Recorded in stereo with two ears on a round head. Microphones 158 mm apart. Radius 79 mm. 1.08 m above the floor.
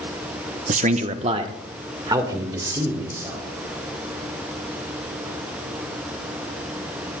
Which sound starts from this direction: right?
A man speaking, at 0.7 s.